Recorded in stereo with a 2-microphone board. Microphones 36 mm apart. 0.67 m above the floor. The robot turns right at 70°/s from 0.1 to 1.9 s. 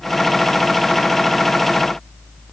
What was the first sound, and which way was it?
Only background noise.